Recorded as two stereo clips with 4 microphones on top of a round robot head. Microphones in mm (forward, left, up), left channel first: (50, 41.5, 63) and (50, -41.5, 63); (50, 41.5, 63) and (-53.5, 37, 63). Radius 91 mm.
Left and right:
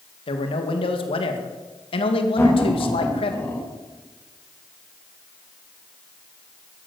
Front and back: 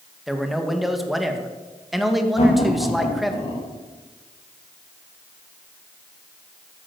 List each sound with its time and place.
0.3 s a man speaking: 95° left, 2 m
2.4 s laughter: 25° left, 7.5 m